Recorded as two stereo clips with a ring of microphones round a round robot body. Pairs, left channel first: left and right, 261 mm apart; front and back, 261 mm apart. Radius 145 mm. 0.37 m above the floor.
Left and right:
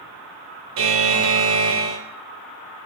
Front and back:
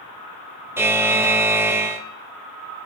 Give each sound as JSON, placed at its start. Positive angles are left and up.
{"t": 0.8, "sound": "a buzzer", "azimuth_deg": -100, "distance_m": 0.6}